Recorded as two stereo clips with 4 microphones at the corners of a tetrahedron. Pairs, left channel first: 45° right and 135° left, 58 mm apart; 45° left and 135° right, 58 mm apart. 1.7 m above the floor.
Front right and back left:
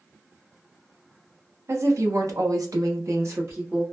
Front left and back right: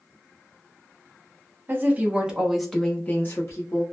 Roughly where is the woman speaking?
Behind.